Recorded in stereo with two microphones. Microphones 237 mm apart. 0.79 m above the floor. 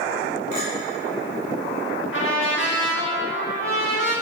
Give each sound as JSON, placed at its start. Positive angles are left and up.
{"t": 0.5, "sound": "a clink", "side_deg": 35, "distance_m": 2.5}
{"t": 2.1, "sound": "a trumpet", "side_deg": 55, "distance_m": 1.7}